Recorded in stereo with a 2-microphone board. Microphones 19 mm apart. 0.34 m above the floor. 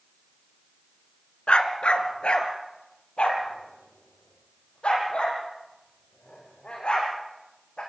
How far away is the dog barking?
About 1.5 m.